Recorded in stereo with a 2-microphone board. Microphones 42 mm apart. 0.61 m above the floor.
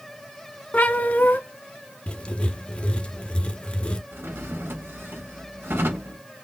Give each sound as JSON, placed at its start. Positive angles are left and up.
{"t": 0.7, "sound": "a cat meowing", "side_deg": 45, "distance_m": 0.7}
{"t": 2.1, "sound": "writing", "side_deg": 25, "distance_m": 0.5}
{"t": 4.1, "sound": "a drawer", "side_deg": -65, "distance_m": 1.0}